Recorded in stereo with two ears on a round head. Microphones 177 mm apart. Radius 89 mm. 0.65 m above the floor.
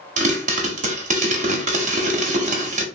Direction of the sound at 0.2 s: 40° right (ahead or behind).